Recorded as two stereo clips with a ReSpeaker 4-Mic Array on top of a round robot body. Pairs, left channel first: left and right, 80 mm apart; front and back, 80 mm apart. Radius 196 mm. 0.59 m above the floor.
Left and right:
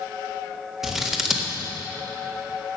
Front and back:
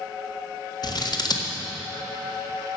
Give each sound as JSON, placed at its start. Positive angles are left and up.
{"t": 0.8, "sound": "scissors", "azimuth_deg": -5, "distance_m": 1.9}